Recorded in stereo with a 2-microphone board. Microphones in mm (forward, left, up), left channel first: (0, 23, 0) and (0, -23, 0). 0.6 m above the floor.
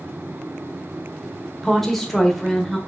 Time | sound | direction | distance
1.6 | a woman speaking | 5° left (ahead or behind) | 1.8 m